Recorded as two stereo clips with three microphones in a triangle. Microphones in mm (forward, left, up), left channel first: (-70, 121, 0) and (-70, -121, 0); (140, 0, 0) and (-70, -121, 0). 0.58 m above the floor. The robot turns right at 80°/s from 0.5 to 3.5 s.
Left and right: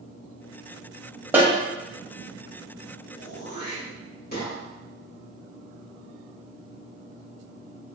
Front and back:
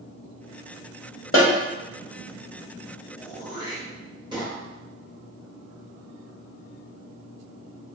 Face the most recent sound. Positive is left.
turn(degrees=140)